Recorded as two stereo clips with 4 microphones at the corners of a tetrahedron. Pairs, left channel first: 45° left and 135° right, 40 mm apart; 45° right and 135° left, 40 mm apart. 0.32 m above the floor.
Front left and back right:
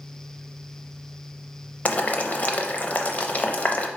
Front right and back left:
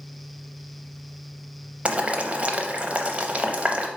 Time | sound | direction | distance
1.9 | boiling | 90° left | 0.5 m